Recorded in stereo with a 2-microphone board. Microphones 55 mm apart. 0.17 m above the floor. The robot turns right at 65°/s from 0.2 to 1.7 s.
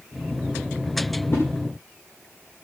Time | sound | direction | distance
1.3 | a whoosh | 50° left (ahead or behind) | 9.5 m